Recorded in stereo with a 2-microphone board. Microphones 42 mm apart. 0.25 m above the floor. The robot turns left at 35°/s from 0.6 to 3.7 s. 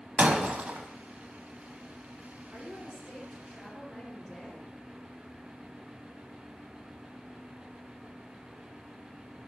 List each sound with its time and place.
0.2 s breaking glass: 40° right (ahead or behind), 0.8 m; by 0.9 s 45° right (ahead or behind), 0.8 m
2.5 s a woman speaking: 135° right, 3 m; by 4.7 s 175° right, 3 m